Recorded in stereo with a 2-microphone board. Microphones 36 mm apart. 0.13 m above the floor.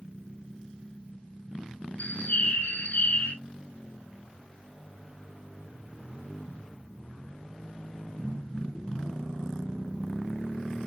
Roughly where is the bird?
Left.